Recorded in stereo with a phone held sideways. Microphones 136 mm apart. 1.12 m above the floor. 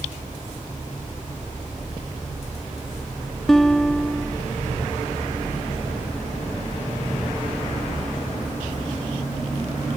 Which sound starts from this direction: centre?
A guitar, at 3.5 s.